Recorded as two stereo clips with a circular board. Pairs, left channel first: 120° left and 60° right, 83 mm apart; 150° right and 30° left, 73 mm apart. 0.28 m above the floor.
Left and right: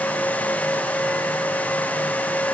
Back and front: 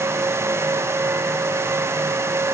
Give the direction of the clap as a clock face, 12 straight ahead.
I don't hear a clap.